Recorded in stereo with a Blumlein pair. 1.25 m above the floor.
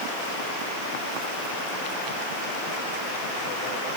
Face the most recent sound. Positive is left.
No sound to turn to.